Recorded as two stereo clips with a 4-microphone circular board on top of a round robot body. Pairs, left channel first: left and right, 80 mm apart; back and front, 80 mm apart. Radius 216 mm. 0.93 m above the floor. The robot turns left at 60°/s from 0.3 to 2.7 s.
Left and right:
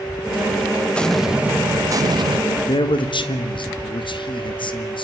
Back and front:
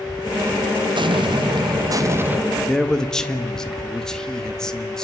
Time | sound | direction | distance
0.9 | an explosion | 15° left | 1.2 m
2.7 | a man speaking | 100° left | 2 m